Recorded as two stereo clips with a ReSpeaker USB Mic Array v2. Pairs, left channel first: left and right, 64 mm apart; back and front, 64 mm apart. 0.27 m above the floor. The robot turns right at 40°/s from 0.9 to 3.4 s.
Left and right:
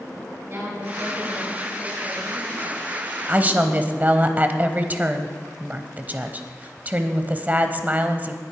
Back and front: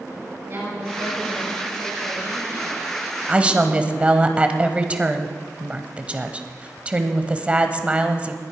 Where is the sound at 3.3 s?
55° right, 1.0 m; by 8.4 s 50° right, 1.0 m.